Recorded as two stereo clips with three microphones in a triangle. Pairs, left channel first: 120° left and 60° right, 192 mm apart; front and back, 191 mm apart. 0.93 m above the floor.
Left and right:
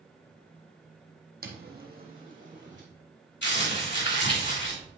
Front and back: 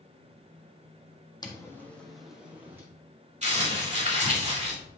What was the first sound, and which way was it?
Footsteps, 65° right.